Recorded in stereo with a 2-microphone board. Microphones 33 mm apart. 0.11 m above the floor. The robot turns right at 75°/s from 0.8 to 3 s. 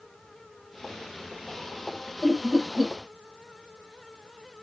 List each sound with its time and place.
2.2 s laughter: 10° left (ahead or behind), 3 m; by 2.9 s 30° right (ahead or behind), 3 m